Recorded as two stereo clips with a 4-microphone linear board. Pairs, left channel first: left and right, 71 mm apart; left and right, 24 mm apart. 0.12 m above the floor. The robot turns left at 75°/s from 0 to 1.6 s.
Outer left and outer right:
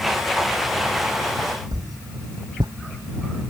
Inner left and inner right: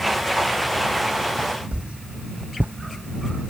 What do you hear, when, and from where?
1.7 s a whoosh: 70° right (ahead or behind)